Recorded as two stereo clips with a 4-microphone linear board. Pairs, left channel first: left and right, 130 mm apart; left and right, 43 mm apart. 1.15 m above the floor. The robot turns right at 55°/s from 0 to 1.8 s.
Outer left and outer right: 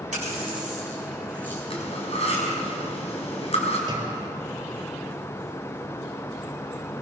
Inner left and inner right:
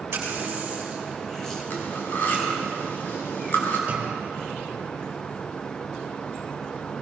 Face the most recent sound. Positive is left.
turn(degrees=-30)  # may be behind; listen again after turning